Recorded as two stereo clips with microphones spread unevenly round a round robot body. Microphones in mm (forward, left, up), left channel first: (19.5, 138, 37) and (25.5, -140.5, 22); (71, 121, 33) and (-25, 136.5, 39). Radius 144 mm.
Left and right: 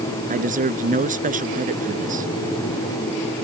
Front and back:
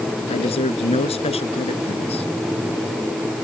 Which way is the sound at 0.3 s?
25° right.